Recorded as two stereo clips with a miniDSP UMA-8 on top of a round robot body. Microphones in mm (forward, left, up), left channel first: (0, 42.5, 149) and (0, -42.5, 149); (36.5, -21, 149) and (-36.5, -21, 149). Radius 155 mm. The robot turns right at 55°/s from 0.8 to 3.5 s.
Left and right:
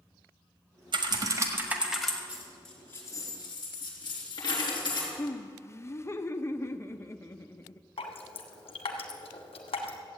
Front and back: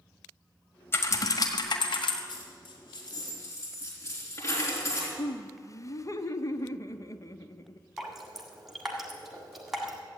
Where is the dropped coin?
15° right, 3.5 m; by 5.1 s 50° left, 3.5 m.